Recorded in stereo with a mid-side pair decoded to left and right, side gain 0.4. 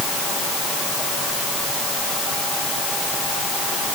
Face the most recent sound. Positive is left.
No sound to turn to.